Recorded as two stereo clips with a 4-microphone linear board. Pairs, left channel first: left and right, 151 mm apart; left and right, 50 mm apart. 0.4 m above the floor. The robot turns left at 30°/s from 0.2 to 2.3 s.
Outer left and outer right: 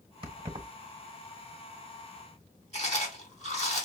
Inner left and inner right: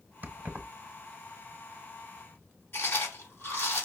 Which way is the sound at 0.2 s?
35° right (ahead or behind).